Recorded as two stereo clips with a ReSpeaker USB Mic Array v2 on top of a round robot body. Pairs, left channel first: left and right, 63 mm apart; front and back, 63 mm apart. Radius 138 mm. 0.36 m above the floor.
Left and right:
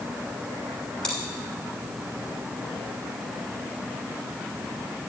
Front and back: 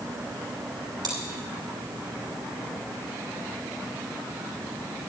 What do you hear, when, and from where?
1.0 s chewing: 170° left, 2.5 m